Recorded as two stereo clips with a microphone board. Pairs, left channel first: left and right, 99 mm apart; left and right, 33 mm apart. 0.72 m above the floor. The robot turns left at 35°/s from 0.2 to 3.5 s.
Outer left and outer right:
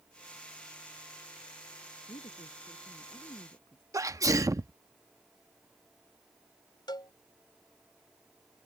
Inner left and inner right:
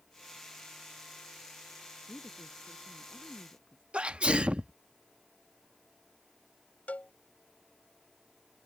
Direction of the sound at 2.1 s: 95° left.